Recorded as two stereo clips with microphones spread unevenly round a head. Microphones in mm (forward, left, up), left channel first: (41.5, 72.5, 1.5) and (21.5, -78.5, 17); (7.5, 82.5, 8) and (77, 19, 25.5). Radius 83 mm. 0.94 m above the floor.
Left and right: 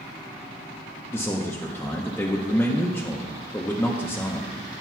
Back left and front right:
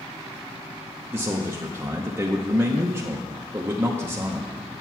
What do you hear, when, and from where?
1.1 s a man speaking: 25° left, 0.8 m